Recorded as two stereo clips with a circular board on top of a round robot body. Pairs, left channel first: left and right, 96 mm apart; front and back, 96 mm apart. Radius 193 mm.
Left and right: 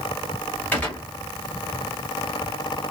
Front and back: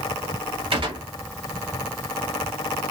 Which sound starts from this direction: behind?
A gunshot, at 0.7 s.